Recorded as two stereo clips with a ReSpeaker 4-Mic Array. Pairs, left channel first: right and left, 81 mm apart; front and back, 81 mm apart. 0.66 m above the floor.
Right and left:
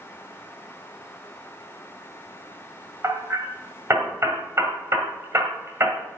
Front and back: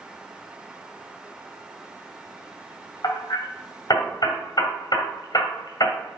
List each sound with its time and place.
3.0 s hammering: 35° left, 1.6 m